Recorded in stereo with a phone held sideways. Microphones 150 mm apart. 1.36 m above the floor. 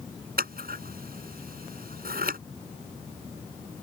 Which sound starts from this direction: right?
Scissors, at 0.4 s.